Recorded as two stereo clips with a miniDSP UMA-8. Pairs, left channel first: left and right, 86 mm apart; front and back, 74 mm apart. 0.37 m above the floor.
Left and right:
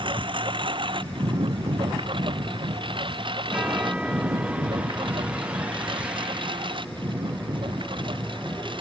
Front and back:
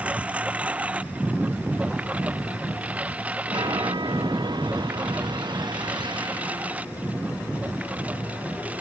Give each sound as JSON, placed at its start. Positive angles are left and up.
{"t": 0.0, "sound": "a lawn mower", "azimuth_deg": -110}
{"t": 3.5, "sound": "a chime", "azimuth_deg": -165}